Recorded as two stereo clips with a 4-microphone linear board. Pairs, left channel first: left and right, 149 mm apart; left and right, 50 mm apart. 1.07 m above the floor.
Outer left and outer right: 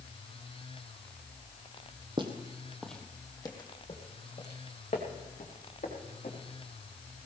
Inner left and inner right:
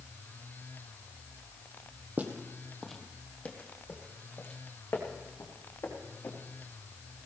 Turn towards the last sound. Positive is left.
turn(degrees=60)  # may be behind; listen again after turning